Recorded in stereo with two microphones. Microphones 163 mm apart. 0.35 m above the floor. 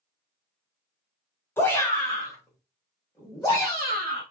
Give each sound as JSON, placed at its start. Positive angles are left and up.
{"t": 1.6, "sound": "a shout", "side_deg": 15, "distance_m": 0.9}